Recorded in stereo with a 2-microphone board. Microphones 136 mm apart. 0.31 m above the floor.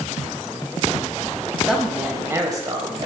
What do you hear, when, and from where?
1.7 s a woman speaking: 5° right (ahead or behind), 1.5 m; by 3.1 s 40° right (ahead or behind), 1.4 m